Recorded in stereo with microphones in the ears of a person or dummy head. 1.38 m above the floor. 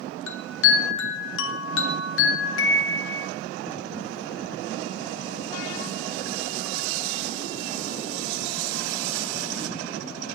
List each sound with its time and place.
0.3 s a chime: 85° left, 1.3 m